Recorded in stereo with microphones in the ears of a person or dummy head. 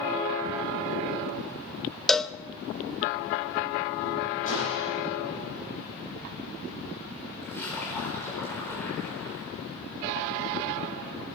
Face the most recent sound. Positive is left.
turn(degrees=15)  # may be behind; listen again after turning